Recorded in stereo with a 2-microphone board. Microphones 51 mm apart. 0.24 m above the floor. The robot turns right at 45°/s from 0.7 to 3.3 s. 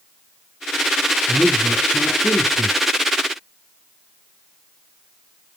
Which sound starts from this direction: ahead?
A man speaking, at 1.3 s.